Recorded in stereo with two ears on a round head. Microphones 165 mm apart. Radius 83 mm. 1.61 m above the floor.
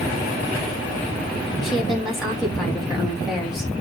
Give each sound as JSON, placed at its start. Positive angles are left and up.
{"t": 1.6, "sound": "a woman speaking", "side_deg": 0, "distance_m": 3.5}